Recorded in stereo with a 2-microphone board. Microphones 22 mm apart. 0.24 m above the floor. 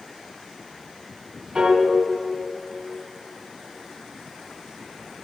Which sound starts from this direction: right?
A piano, at 1.6 s.